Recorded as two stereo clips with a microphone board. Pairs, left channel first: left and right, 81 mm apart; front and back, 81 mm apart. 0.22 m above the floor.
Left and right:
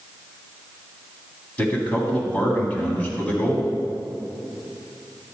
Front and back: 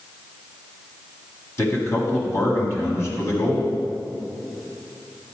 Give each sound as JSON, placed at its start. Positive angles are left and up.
{"t": 1.6, "sound": "a man speaking", "azimuth_deg": 30, "distance_m": 1.8}